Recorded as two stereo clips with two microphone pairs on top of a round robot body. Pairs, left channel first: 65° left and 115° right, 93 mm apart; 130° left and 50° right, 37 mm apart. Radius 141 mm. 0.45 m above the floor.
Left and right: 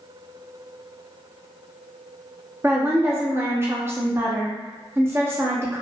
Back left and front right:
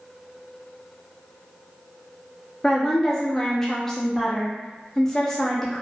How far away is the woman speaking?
About 0.7 m.